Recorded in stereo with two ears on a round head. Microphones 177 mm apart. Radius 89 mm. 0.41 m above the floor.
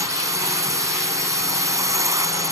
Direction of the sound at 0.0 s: 15° right (ahead or behind).